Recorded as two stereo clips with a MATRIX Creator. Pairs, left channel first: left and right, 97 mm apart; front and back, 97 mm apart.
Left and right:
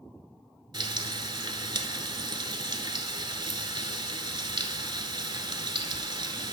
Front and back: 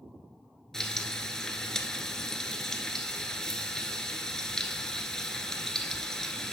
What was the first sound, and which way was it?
Frying, 80° right.